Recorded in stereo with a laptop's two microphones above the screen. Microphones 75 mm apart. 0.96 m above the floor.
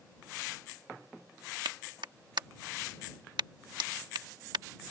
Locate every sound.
1.6 s a clap: 80° right